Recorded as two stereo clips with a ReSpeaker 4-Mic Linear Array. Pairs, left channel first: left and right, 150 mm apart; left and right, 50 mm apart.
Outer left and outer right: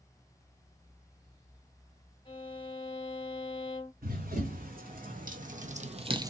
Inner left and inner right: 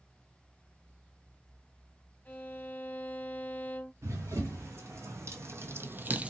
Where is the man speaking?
I don't hear a man speaking.